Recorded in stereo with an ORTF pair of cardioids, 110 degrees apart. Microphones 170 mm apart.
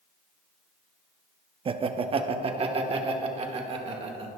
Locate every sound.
1.6 s laughter: 35° right, 0.7 m